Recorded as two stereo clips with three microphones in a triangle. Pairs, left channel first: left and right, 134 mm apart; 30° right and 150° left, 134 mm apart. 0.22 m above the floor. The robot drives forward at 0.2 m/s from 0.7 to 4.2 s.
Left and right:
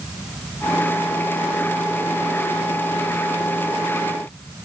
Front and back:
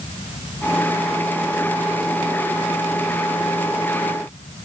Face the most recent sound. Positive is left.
No sound to turn to.